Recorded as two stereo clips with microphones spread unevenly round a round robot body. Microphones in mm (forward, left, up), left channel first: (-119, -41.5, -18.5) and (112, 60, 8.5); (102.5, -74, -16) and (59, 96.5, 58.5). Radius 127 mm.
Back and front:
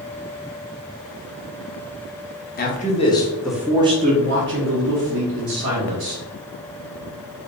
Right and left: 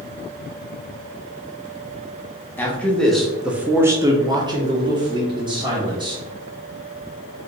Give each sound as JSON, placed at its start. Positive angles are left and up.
{"t": 2.6, "sound": "a man speaking", "azimuth_deg": -125, "distance_m": 1.0}